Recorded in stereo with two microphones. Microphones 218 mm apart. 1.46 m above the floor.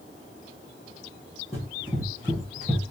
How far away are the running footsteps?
About 1.9 m.